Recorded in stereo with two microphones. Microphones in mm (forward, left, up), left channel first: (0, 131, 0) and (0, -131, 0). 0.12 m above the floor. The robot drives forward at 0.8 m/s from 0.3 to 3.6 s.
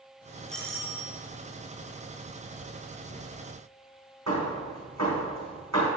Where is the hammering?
80° right, 4 m.